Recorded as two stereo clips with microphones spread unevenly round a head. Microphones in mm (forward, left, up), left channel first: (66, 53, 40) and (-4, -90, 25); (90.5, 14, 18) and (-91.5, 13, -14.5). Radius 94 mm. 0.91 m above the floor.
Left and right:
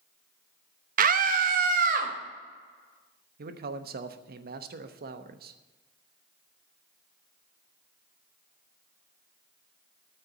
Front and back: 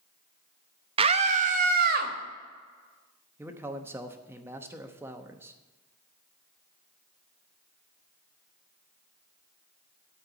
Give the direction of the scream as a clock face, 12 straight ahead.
4 o'clock.